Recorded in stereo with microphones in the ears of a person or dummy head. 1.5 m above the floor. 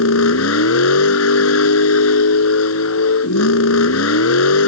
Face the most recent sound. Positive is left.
turn(degrees=80)